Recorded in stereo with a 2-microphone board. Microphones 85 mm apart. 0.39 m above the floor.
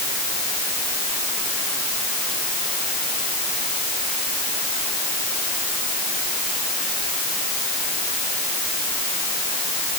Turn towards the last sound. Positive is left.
No sound to turn to.